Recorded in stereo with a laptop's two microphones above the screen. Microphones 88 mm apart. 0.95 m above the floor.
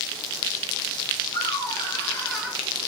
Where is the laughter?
65° left (ahead or behind), 1.5 m; by 2.6 s 20° right (ahead or behind), 0.8 m.